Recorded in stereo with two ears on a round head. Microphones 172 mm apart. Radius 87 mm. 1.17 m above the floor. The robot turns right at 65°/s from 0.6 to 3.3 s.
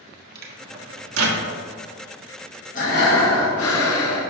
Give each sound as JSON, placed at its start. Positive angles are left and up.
{"t": 0.3, "sound": "a microwave", "side_deg": -50, "distance_m": 1.3}
{"t": 2.8, "sound": "breathing", "azimuth_deg": 40, "distance_m": 1.5}